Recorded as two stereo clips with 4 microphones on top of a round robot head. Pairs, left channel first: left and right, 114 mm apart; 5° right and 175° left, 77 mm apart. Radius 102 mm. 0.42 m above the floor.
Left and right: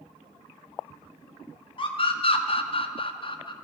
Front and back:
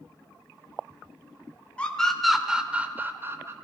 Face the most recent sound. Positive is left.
turn(degrees=125)